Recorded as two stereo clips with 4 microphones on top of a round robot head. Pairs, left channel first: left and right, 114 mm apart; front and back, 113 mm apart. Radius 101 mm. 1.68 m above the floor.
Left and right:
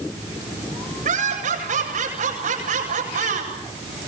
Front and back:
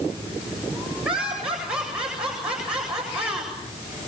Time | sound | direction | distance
1.1 | laughter | 95° right | 8.5 m